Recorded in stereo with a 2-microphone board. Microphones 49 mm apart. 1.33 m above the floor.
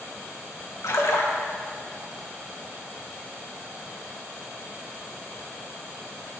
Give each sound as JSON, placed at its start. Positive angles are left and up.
{"t": 0.8, "sound": "a splash", "side_deg": 75, "distance_m": 1.5}